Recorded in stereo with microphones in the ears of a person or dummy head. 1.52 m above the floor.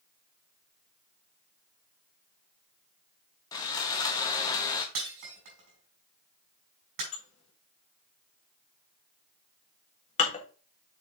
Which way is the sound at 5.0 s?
55° right (ahead or behind).